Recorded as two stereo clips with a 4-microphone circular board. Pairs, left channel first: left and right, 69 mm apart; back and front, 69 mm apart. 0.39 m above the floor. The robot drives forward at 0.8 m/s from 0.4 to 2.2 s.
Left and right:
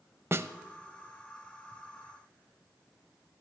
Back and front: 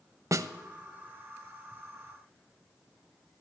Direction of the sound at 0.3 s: 40° right.